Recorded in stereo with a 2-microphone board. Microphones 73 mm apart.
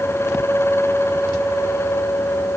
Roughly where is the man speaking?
No man speaking in this recording.